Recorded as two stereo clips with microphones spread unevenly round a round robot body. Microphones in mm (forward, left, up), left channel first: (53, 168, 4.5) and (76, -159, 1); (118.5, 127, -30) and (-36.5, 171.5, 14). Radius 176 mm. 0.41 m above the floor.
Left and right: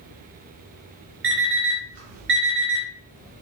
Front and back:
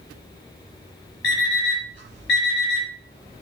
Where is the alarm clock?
65° right, 4 m.